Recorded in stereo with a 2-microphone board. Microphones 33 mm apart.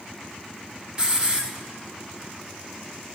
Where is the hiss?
20° right (ahead or behind), 1.3 m.